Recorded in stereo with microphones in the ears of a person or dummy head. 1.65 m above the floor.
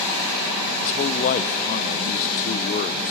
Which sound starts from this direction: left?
A man speaking, at 0.8 s.